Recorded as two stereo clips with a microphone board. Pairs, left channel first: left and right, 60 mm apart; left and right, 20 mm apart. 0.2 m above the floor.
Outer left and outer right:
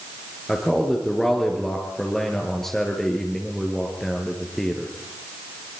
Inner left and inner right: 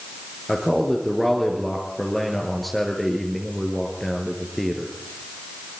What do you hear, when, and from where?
0.5 s a man speaking: 5° left (ahead or behind), 3.5 m